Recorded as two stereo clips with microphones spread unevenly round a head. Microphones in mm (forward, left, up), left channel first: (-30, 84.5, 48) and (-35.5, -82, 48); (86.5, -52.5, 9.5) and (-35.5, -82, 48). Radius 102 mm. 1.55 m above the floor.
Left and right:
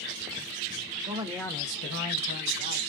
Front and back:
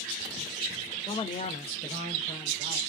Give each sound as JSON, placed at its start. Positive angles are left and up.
{"t": 1.1, "sound": "a man speaking", "azimuth_deg": -35, "distance_m": 0.8}